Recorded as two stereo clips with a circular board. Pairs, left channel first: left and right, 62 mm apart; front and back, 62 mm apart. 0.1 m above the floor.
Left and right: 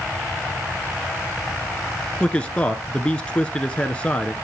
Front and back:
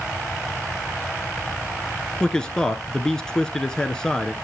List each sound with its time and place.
2.2 s a man speaking: 60° left, 1.1 m